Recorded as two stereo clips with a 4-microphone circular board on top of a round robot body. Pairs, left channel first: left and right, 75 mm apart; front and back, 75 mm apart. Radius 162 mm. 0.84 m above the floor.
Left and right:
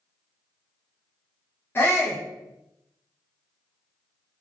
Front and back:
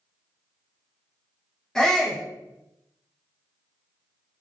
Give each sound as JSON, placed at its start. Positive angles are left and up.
{"t": 1.8, "sound": "a shout", "azimuth_deg": 75, "distance_m": 0.9}